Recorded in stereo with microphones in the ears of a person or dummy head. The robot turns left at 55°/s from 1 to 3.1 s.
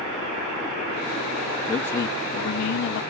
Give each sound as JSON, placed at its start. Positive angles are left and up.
{"t": 1.7, "sound": "a man speaking", "azimuth_deg": 180, "distance_m": 1.3}